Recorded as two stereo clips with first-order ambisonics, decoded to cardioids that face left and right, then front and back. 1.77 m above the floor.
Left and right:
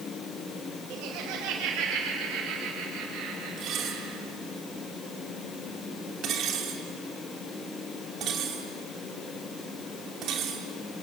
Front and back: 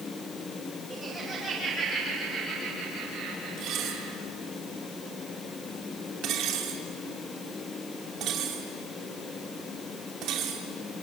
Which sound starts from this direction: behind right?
Dishes clattering, at 3.6 s.